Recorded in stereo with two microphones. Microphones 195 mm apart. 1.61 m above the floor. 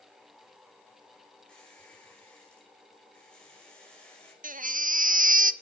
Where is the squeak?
5° left (ahead or behind), 4.5 m.